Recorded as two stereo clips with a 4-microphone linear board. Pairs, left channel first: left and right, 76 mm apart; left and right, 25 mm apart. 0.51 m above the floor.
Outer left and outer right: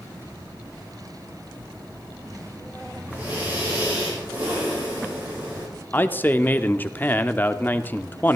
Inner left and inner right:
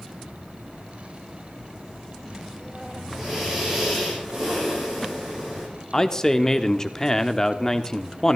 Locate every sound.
3.1 s breathing: 20° right (ahead or behind), 8.5 m
5.9 s a man speaking: 25° left (ahead or behind), 0.7 m